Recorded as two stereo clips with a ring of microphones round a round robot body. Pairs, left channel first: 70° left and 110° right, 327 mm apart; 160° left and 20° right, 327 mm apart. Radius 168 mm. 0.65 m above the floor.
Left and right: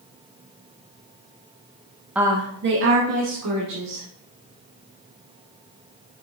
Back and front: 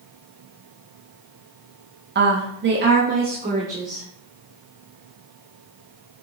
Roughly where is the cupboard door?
I don't hear a cupboard door.